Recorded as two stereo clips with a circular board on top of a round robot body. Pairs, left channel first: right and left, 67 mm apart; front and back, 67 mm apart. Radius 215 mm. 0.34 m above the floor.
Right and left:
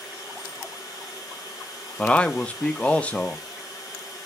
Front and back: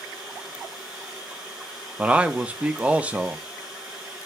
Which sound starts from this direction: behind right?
A man speaking, at 2.0 s.